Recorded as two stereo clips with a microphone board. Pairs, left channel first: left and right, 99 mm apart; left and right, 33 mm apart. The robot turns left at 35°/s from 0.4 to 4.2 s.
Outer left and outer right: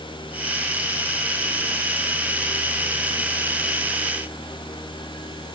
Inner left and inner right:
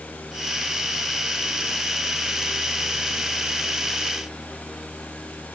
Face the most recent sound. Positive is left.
No sound to turn to.